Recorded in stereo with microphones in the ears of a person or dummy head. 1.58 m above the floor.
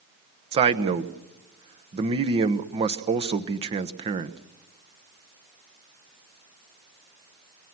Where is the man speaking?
30° right (ahead or behind), 1.0 m.